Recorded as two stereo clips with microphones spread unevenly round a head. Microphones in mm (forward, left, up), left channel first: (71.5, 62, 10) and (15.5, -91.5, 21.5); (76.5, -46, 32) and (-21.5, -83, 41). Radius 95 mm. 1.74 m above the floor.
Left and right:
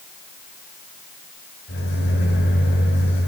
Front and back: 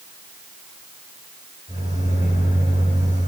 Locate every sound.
1.7 s a microwave: 60° left, 8.5 m